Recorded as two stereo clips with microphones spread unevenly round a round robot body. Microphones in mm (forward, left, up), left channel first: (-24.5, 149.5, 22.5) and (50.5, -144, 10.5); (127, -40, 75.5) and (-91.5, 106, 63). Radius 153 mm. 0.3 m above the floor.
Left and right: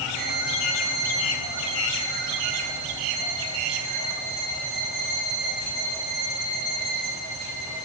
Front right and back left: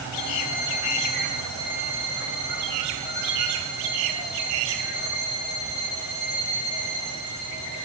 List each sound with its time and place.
0.1 s a violin: 60° right, 9.5 m